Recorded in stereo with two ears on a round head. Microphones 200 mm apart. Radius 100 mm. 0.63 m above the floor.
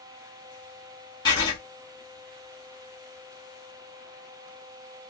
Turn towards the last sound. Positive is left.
turn(degrees=20)  # may be behind; listen again after turning